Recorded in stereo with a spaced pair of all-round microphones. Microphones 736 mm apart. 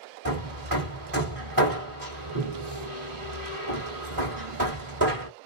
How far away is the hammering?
About 1.5 m.